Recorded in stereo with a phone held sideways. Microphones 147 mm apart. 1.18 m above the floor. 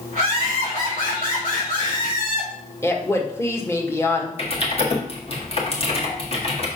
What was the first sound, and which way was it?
Laughter, 80° left.